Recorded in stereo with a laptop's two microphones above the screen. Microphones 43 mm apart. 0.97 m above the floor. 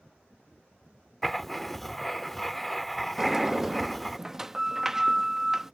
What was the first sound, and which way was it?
Writing, 5° left (ahead or behind).